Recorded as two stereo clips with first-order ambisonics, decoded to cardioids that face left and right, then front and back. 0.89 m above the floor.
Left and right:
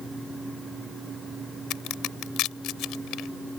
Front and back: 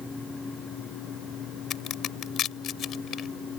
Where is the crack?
50° left.